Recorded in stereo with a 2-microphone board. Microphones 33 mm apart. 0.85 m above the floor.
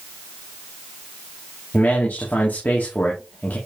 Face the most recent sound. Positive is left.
turn(degrees=65)  # may be behind; listen again after turning